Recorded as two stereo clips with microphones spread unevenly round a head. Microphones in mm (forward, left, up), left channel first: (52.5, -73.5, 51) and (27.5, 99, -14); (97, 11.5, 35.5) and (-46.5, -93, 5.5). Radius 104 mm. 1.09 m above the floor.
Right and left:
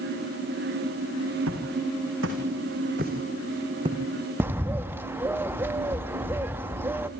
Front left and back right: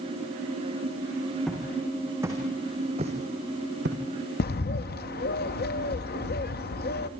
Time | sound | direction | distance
1.5 | footsteps | 125° left | 4.5 m
4.4 | a bird | 15° left | 0.8 m